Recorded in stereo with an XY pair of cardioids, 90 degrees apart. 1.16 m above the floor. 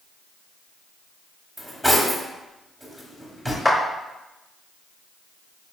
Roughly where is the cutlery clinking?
Ahead.